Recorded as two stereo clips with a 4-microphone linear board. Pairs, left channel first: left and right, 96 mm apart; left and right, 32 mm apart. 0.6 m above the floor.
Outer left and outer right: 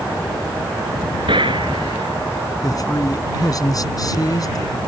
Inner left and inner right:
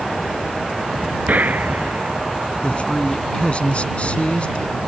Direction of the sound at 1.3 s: 60° right (ahead or behind).